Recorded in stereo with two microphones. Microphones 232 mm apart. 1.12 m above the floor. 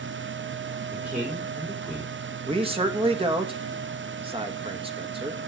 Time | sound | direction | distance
0.9 | a man speaking | 5° right (ahead or behind) | 4 m
2.5 | a man speaking | 25° right (ahead or behind) | 1.6 m